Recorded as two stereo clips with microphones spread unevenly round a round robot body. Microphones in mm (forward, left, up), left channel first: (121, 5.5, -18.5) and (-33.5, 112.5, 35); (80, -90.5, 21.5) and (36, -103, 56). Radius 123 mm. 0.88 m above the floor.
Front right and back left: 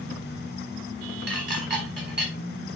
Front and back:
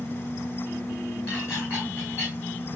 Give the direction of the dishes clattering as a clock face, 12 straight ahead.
8 o'clock.